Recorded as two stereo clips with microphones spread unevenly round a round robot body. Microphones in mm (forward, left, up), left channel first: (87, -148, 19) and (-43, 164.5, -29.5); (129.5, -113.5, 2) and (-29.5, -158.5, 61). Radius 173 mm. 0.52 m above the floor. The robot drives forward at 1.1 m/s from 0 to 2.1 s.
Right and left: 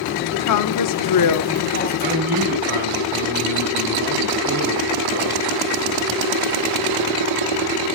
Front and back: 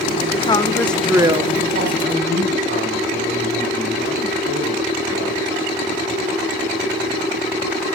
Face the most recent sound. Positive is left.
turn(degrees=170)